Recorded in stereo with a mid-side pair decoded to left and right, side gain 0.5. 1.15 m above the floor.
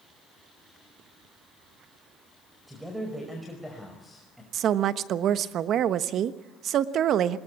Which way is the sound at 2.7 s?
Straight ahead.